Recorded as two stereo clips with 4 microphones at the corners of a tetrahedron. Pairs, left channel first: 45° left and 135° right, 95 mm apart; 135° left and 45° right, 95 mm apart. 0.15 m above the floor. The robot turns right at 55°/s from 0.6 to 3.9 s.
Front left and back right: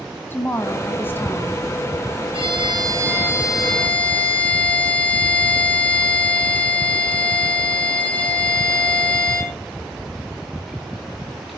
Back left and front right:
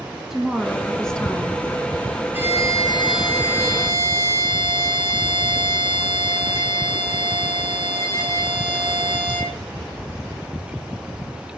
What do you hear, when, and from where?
0.3 s a woman speaking: 35° left, 1.4 m; by 1.6 s 95° left, 1.4 m
2.3 s a violin: 115° right, 5 m; by 9.6 s 25° right, 5 m